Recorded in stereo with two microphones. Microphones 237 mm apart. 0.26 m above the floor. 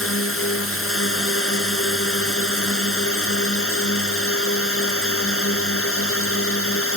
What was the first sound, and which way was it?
A drone, 65° left (ahead or behind).